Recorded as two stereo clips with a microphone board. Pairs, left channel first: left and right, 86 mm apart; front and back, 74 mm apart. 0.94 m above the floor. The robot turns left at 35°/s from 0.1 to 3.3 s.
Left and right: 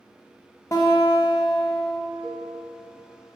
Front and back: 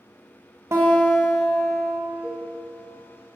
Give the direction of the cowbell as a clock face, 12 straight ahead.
12 o'clock.